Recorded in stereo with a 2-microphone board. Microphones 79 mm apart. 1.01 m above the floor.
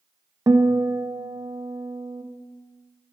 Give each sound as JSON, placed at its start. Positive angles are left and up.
{"t": 0.5, "sound": "a guitar", "side_deg": -50, "distance_m": 0.7}